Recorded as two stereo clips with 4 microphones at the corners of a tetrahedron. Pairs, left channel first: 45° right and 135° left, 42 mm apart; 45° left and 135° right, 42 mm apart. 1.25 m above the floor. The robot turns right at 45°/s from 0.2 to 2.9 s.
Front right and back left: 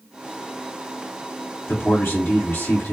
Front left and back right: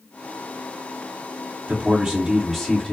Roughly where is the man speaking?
Right.